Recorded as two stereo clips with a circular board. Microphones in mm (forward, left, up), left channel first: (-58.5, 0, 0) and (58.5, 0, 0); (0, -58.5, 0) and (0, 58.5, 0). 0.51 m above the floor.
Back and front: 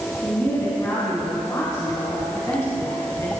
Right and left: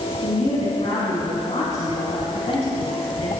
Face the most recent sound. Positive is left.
turn(degrees=-115)